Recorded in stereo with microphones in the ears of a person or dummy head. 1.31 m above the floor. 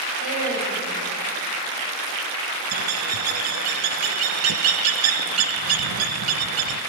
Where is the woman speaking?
85° right, 7.5 m.